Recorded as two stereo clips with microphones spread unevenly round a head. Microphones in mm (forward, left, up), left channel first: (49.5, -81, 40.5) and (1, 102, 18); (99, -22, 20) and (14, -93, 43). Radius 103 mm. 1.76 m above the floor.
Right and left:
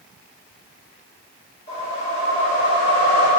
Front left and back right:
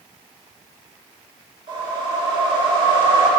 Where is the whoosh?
125° right, 1.9 m.